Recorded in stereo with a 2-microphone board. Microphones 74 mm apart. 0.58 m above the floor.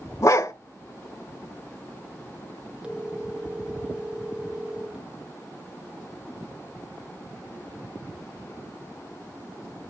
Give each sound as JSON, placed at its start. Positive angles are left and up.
{"t": 0.2, "sound": "a dog barking", "side_deg": 45, "distance_m": 0.8}
{"t": 2.8, "sound": "a phone ringing", "side_deg": -15, "distance_m": 1.4}